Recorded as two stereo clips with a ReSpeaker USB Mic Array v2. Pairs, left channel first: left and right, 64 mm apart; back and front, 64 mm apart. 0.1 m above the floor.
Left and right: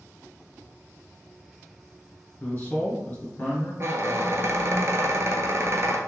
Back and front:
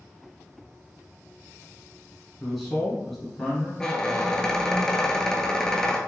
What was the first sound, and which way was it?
A man speaking, 95° left.